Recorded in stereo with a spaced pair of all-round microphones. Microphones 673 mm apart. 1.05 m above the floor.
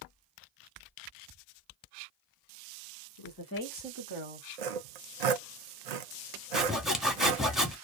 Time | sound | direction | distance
3.2 | a woman speaking | 45° left (ahead or behind) | 1.2 m
4.6 | sawing | 75° right (ahead or behind) | 0.6 m
6.5 | sawing | centre (ahead or behind) | 0.8 m